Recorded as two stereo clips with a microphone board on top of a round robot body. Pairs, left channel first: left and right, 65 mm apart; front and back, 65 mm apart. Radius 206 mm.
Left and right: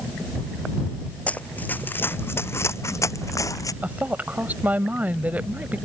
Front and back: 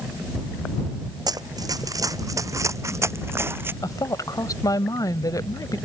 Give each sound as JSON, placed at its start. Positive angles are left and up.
{"t": 1.3, "sound": "running footsteps", "azimuth_deg": 160}
{"t": 3.8, "sound": "a woman speaking", "azimuth_deg": -25}